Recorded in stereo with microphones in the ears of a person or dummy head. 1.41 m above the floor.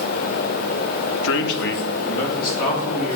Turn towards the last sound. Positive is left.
turn(degrees=50)  # may be behind; listen again after turning